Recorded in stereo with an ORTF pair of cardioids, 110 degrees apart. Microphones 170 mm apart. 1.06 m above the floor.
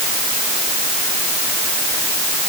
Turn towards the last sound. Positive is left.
No sound to turn to.